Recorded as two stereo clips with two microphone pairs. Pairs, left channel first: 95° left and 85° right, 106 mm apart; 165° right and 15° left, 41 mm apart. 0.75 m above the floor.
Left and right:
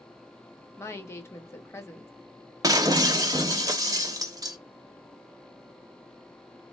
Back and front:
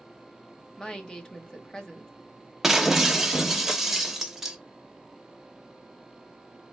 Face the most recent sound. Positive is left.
turn(degrees=-60)